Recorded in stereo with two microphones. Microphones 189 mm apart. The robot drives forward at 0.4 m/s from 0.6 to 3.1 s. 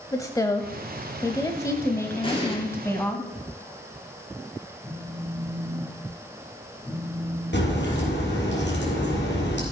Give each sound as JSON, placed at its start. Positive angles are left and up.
{"t": 0.1, "sound": "a woman speaking", "side_deg": 20, "distance_m": 0.9}
{"t": 2.2, "sound": "an explosion", "side_deg": 30, "distance_m": 3.5}
{"t": 4.8, "sound": "a phone buzzing", "side_deg": 10, "distance_m": 4.5}
{"t": 7.5, "sound": "a crack", "side_deg": 80, "distance_m": 4.0}